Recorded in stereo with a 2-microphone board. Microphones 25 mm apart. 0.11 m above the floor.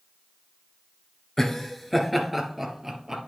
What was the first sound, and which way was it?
Laughter, 20° left (ahead or behind).